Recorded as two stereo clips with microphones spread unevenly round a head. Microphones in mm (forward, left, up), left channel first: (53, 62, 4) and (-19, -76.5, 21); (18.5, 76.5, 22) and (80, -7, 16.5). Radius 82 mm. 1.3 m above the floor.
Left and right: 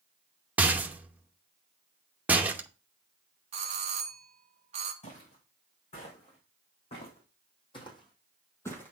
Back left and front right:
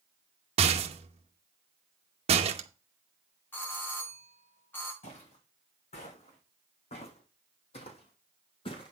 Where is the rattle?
40° right, 0.9 m.